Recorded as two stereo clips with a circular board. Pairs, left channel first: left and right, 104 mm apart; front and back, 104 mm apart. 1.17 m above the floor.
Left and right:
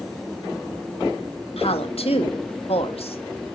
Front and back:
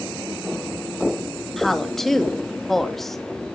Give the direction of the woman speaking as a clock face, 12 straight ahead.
9 o'clock.